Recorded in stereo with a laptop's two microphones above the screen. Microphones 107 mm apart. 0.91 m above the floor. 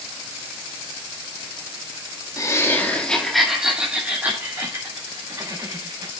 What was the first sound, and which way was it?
Laughter, 35° left (ahead or behind).